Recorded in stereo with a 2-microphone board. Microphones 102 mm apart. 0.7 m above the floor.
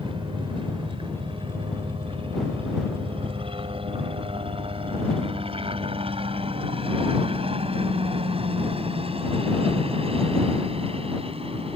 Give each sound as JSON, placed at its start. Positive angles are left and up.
{"t": 0.0, "sound": "a helicopter", "side_deg": -55}